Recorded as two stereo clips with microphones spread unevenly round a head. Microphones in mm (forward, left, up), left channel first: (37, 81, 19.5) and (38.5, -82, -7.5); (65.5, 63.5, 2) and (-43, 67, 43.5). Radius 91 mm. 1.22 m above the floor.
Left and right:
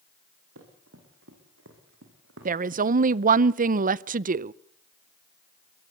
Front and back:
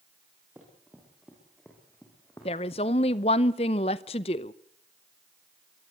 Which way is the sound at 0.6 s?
105° right.